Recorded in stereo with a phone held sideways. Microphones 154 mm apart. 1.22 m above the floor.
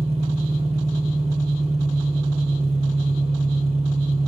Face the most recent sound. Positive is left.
turn(degrees=-40)  # may be behind; listen again after turning